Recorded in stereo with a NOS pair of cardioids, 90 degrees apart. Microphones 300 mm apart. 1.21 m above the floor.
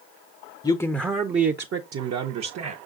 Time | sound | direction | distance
0.6 | a man speaking | 15° left | 0.5 m